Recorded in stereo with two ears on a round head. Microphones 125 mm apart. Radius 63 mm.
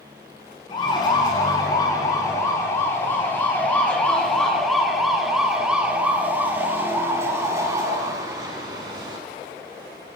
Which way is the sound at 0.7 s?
35° left (ahead or behind).